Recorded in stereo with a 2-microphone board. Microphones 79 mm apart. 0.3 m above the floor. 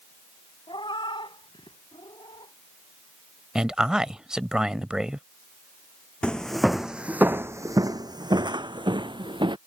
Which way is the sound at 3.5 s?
10° right (ahead or behind).